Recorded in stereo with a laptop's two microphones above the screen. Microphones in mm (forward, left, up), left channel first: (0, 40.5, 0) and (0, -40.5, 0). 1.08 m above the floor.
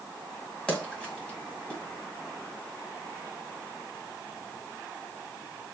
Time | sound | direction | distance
0.7 | a splash | 10° left (ahead or behind) | 2 m